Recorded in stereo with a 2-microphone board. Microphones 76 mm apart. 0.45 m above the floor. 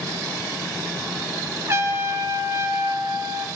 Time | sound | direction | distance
1.7 | a trumpet | 35° right (ahead or behind) | 1.1 m